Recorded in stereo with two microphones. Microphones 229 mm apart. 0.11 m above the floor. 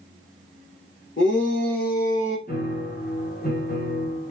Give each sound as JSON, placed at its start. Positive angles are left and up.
{"t": 1.2, "sound": "a shout", "side_deg": 55, "distance_m": 3.5}
{"t": 2.5, "sound": "a piano", "side_deg": 40, "distance_m": 2.0}